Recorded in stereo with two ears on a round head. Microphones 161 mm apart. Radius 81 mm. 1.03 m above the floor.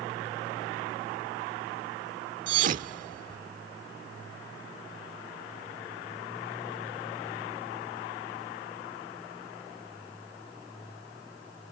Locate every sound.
2.5 s a thud: 50° right (ahead or behind)